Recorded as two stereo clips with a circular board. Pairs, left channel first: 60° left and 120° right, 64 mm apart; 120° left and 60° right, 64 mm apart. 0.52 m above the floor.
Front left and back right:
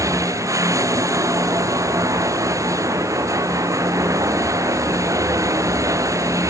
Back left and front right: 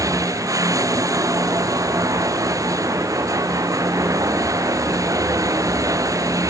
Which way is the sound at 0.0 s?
90° right.